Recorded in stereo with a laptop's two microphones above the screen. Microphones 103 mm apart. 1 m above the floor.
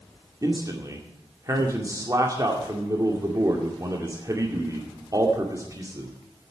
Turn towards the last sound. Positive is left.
turn(degrees=-35)  # may be behind; listen again after turning